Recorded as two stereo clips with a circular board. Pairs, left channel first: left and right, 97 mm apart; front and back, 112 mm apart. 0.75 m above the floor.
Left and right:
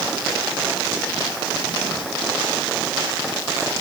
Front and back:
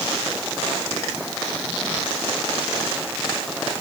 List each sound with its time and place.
Only background noise.